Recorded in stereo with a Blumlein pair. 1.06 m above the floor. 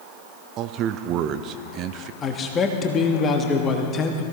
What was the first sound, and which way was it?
A man speaking, 35° right.